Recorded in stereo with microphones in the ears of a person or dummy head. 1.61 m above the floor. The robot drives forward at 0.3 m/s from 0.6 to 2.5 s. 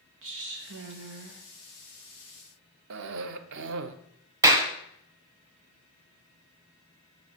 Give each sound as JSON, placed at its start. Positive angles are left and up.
{"t": 0.2, "sound": "a woman speaking", "side_deg": -60, "distance_m": 1.1}
{"t": 2.9, "sound": "a cough", "side_deg": -70, "distance_m": 0.7}
{"t": 4.4, "sound": "a clap", "side_deg": -20, "distance_m": 1.0}